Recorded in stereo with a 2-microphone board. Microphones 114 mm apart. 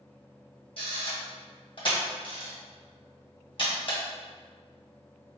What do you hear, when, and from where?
0.8 s a camera shutter: 50° left (ahead or behind), 1.9 m